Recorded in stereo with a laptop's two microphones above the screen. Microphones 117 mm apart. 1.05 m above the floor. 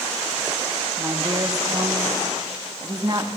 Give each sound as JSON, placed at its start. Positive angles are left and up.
{"t": 1.0, "sound": "a woman speaking", "side_deg": -35, "distance_m": 1.3}